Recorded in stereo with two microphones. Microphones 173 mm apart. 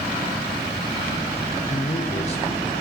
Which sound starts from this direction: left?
A man speaking, at 1.7 s.